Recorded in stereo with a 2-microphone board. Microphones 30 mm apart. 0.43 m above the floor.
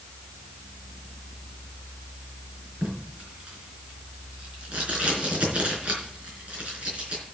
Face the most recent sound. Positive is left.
turn(degrees=-40)  # may be behind; listen again after turning